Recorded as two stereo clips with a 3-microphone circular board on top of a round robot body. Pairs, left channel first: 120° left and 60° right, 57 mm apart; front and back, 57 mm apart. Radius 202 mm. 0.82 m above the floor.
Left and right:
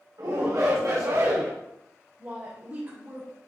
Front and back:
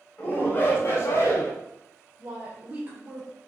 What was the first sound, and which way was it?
A shout, 60° right.